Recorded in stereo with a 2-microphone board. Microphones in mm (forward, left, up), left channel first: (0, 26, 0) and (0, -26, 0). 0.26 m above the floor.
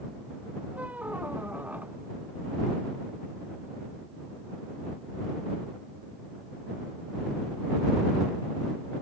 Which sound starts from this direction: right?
A squeak, at 0.7 s.